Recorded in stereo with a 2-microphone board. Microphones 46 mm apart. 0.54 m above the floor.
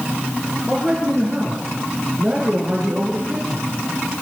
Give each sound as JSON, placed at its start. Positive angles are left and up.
{"t": 0.7, "sound": "a man speaking", "side_deg": -25, "distance_m": 8.5}